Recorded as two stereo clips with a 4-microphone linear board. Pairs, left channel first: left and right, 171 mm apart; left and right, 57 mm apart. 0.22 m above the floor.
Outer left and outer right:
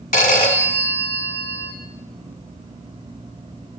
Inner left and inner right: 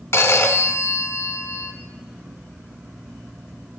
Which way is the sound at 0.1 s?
50° left (ahead or behind).